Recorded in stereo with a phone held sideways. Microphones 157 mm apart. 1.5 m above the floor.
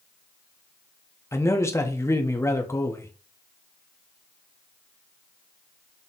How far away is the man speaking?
About 0.8 m.